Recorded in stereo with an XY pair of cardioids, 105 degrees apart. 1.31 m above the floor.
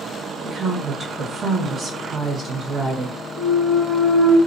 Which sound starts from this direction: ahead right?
A woman speaking, at 0.4 s.